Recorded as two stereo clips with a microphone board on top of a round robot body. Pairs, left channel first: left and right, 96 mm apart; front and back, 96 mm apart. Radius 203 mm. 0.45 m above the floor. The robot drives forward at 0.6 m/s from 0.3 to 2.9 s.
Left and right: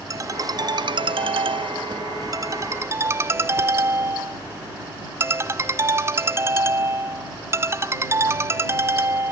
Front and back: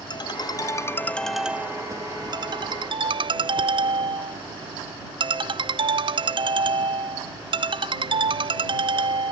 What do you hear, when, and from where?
0.1 s a ringtone: 40° right; by 9.3 s 150° right